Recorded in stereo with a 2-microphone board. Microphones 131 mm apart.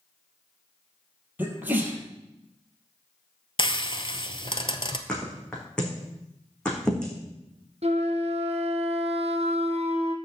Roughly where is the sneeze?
Centre.